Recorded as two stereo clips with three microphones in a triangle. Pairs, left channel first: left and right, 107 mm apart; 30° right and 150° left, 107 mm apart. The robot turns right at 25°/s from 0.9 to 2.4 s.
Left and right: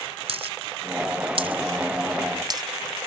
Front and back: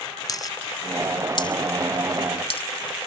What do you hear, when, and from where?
0.3 s a dropped coin: 80° right; by 2.6 s 45° right